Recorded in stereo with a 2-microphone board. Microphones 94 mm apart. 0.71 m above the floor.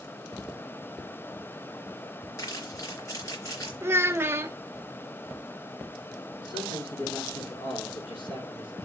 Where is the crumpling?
40° left (ahead or behind), 3.5 m.